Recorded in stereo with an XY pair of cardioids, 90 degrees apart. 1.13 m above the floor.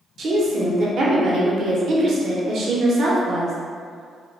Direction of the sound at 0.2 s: 60° right.